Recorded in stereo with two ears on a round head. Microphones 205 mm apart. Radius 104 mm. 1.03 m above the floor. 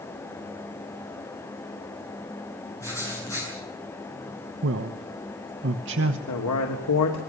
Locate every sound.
2.8 s writing: 15° left (ahead or behind), 9 m
4.6 s a man speaking: 55° right (ahead or behind), 1.1 m
6.3 s a man speaking: 80° left, 2.5 m